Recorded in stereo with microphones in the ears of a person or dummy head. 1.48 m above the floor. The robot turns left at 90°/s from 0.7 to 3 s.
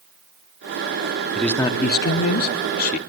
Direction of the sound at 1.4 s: Straight behind.